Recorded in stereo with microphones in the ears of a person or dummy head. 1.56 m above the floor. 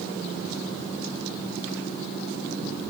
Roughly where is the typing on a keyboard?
No typing on a keyboard in this recording.